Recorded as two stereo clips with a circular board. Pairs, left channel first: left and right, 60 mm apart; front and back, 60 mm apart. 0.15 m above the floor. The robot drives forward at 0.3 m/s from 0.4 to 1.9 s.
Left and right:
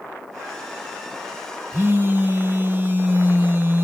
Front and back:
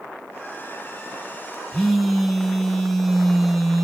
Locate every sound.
1.7 s a phone buzzing: 80° right, 0.5 m; by 3.9 s 90° right, 0.5 m